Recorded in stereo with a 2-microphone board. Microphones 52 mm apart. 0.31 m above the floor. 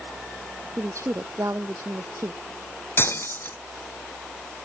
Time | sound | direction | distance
0.8 | a woman speaking | 80° right | ?
3.0 | breaking glass | 45° left (ahead or behind) | ?